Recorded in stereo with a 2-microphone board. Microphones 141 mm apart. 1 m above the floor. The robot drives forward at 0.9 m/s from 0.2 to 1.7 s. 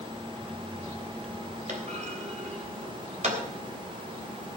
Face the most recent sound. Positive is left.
turn(degrees=-55)  # may be behind; listen again after turning